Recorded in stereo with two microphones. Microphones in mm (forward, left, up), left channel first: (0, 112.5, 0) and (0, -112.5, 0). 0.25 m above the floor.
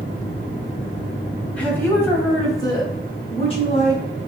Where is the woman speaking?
5° left (ahead or behind), 1.7 m; by 4.0 s 30° left (ahead or behind), 1.7 m.